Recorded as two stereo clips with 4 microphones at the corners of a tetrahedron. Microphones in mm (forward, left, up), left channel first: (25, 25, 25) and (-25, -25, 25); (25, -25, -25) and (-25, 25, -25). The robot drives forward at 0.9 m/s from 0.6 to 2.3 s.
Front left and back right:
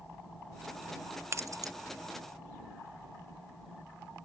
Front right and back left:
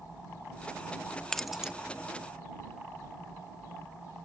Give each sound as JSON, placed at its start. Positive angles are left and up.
{"t": 1.3, "sound": "keys jangling", "azimuth_deg": -120}